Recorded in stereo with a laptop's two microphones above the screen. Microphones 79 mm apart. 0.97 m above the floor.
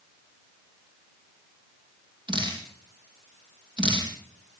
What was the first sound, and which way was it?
Dripping, 85° right.